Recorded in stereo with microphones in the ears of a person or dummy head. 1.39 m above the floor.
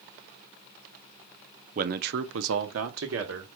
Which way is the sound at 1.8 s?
35° right (ahead or behind).